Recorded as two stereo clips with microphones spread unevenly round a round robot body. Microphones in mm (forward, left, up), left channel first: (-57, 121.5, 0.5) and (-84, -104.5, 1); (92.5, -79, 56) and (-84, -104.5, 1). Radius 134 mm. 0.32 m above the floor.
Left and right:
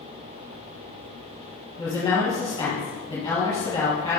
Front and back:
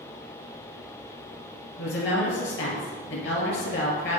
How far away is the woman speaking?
About 2.5 m.